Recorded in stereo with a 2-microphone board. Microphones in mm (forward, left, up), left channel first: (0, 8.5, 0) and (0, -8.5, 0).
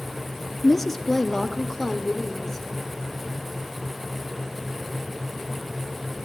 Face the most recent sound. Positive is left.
turn(degrees=20)  # may be behind; listen again after turning